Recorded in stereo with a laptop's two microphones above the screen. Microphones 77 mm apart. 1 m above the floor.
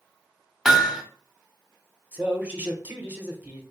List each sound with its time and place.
0.7 s hammering: 5° right (ahead or behind), 0.8 m
2.1 s a man speaking: 20° right (ahead or behind), 0.9 m